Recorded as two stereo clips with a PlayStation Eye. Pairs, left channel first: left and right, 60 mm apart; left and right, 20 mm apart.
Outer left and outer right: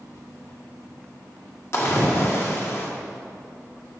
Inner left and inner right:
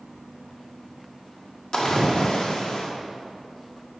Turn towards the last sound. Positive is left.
turn(degrees=45)  # may be behind; listen again after turning